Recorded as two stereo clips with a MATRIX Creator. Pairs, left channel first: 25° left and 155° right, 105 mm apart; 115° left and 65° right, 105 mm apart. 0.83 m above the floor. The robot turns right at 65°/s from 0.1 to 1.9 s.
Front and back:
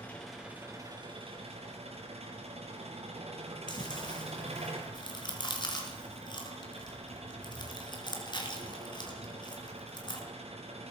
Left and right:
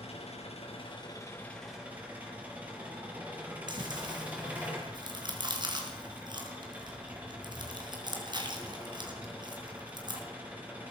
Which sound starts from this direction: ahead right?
Chewing, at 3.7 s.